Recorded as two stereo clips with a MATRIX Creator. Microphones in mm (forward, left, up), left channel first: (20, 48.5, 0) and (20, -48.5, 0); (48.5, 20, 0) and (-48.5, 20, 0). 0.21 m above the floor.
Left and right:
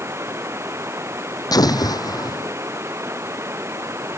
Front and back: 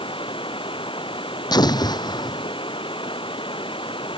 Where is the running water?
25° right.